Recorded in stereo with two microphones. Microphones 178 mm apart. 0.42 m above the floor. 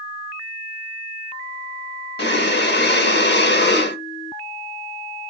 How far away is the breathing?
About 0.6 m.